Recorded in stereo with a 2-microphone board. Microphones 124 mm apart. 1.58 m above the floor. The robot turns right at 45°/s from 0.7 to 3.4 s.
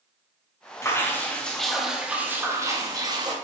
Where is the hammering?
No hammering in this recording.